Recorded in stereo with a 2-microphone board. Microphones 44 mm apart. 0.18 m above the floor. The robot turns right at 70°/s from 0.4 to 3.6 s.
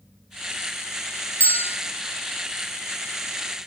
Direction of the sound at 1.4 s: 35° left (ahead or behind).